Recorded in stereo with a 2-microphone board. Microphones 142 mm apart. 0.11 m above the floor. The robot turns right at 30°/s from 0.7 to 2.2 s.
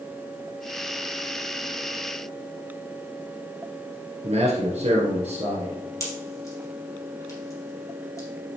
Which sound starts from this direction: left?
A pop, at 6.0 s.